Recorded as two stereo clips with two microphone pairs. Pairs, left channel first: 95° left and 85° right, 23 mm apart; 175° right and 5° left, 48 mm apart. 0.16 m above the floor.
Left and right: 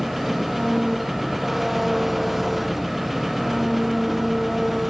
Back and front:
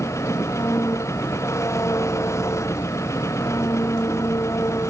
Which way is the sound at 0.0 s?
170° right.